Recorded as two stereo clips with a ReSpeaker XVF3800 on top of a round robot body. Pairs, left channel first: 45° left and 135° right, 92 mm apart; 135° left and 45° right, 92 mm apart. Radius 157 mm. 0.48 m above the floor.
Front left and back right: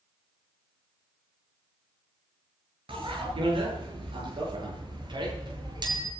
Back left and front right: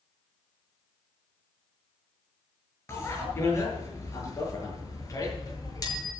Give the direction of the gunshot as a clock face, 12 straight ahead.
No gunshot in this recording.